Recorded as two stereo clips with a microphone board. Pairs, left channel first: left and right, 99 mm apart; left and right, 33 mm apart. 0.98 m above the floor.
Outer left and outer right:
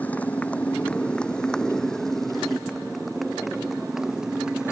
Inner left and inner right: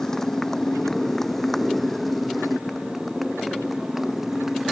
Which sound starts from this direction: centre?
A motorcycle, at 0.0 s.